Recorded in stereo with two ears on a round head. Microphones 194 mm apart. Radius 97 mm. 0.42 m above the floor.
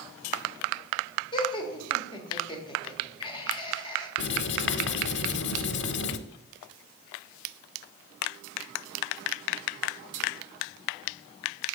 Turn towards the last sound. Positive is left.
turn(degrees=55)  # may be behind; listen again after turning